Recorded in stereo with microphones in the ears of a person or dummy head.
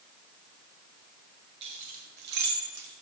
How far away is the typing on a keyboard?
I don't hear typing on a keyboard.